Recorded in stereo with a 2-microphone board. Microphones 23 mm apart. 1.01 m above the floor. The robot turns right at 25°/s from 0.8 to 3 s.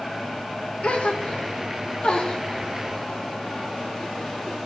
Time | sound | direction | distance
0.8 | a gasp | 70° left (ahead or behind) | 0.7 m